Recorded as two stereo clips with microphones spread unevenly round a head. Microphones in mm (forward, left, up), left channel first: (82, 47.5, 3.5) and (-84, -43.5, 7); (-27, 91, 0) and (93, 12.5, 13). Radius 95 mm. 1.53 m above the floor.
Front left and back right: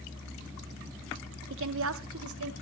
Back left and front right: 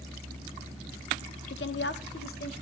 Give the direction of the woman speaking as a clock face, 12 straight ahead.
6 o'clock.